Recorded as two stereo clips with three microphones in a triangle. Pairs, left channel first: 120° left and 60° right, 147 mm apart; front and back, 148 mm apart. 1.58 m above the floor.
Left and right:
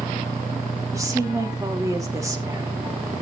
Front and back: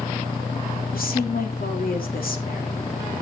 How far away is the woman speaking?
About 2.5 m.